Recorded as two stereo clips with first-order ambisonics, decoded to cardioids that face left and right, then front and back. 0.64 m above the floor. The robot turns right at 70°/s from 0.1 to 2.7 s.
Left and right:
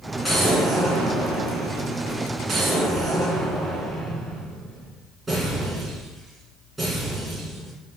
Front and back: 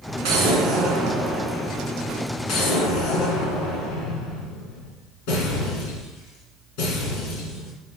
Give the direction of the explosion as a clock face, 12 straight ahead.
6 o'clock.